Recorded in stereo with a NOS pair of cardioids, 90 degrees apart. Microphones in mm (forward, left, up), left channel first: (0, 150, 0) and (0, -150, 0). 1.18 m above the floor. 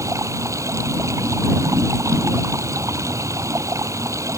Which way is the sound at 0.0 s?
10° right.